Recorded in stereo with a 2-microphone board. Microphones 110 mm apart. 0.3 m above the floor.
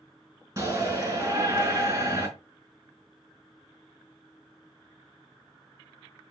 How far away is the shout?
About 4 m.